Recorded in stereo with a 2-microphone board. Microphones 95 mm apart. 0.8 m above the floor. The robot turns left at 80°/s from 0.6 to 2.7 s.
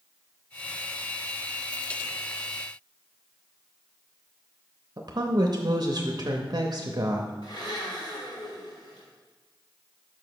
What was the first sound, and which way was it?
A woman speaking, 50° right (ahead or behind).